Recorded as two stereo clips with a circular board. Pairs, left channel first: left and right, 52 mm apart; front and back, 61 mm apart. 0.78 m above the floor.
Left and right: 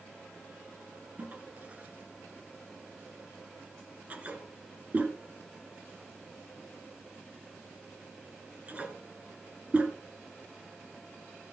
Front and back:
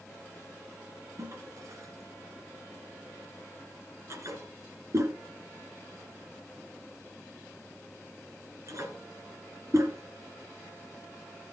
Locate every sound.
1.2 s a toilet flushing: 150° right, 1.8 m